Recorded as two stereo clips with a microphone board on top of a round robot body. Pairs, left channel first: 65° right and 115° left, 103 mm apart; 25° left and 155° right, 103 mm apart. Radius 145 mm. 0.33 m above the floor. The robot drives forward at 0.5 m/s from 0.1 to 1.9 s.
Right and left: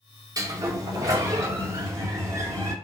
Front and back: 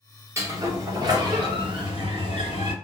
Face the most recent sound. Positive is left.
turn(degrees=165)